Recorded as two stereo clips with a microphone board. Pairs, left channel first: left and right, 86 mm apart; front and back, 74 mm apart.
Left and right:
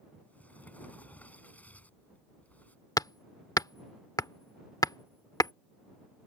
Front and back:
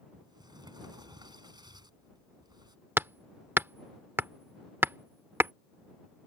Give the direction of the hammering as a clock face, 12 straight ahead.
8 o'clock.